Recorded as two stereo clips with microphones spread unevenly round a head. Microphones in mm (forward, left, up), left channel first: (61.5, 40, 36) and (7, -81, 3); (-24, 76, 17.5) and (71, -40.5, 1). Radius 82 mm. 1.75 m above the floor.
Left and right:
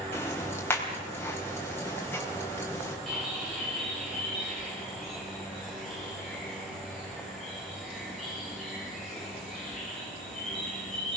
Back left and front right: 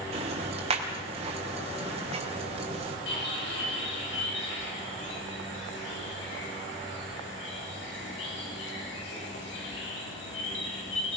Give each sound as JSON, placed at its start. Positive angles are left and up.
{"t": 0.1, "sound": "ticking", "azimuth_deg": -5, "distance_m": 4.0}
{"t": 3.1, "sound": "a bird", "azimuth_deg": 155, "distance_m": 6.0}